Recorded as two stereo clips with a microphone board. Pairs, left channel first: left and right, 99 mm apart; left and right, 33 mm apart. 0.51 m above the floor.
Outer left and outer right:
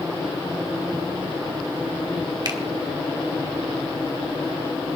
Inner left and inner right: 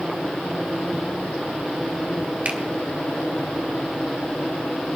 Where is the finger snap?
40° right (ahead or behind), 1.5 m.